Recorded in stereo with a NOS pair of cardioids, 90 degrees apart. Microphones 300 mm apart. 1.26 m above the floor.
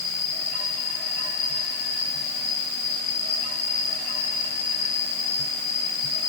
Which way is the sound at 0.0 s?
60° left.